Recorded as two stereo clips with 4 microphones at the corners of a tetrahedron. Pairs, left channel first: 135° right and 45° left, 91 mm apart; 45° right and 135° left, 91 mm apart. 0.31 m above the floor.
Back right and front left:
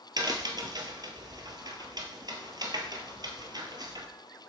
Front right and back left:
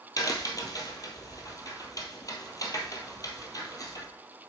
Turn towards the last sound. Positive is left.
turn(degrees=5)